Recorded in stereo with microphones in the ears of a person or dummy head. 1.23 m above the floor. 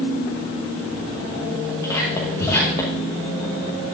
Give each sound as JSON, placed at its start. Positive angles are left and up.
{"t": 1.8, "sound": "whispering", "side_deg": 25, "distance_m": 1.1}